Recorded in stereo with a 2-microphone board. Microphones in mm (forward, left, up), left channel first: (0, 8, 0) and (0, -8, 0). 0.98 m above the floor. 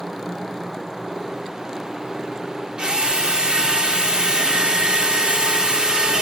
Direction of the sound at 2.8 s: 75° right (ahead or behind).